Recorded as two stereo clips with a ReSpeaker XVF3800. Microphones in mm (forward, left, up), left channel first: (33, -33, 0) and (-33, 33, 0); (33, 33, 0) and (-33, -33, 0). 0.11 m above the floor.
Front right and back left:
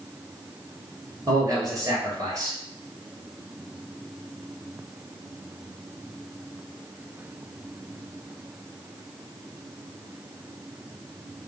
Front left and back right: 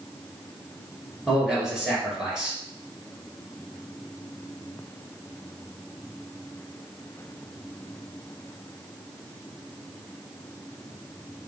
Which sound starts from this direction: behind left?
A man speaking, at 1.3 s.